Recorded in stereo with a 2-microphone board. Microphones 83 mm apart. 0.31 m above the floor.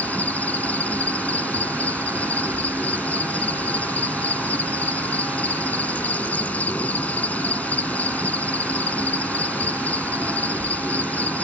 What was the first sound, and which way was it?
An insect, 20° left (ahead or behind).